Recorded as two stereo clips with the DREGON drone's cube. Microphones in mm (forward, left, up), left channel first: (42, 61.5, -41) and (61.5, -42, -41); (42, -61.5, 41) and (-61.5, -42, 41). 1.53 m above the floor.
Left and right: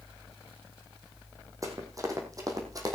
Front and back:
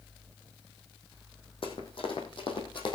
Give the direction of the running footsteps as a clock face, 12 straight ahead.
1 o'clock.